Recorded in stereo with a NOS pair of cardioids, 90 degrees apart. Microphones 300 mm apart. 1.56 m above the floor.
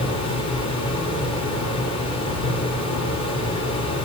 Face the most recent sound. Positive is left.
turn(degrees=65)